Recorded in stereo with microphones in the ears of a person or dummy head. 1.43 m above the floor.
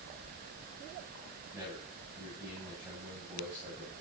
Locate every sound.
1.5 s a man speaking: 15° right (ahead or behind), 9.5 m